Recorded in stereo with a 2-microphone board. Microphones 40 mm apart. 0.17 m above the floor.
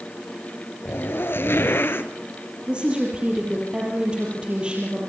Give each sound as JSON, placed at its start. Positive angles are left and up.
{"t": 0.8, "sound": "a zipper", "side_deg": 70, "distance_m": 1.4}
{"t": 2.7, "sound": "a woman speaking", "side_deg": -25, "distance_m": 5.5}